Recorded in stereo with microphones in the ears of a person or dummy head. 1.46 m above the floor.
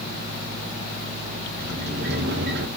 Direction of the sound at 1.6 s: 60° right (ahead or behind).